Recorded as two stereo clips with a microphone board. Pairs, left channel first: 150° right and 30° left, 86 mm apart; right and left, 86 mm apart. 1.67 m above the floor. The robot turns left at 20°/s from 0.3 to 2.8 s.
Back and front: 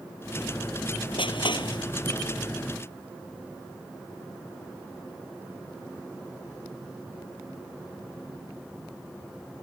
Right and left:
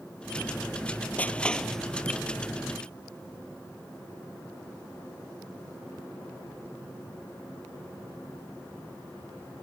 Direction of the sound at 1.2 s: 165° right.